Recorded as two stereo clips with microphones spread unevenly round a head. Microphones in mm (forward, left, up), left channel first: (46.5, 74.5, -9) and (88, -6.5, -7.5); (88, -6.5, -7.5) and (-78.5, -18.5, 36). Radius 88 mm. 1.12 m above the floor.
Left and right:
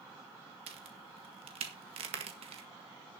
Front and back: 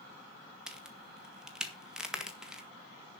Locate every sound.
0.7 s a crack: 85° right, 1.7 m